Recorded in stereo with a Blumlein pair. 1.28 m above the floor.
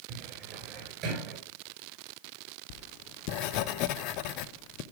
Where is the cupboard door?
35° right, 5 m.